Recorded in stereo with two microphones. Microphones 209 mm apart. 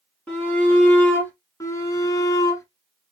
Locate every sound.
0.3 s a shout: 5° left (ahead or behind), 2.5 m
1.6 s a shout: 15° left (ahead or behind), 1.6 m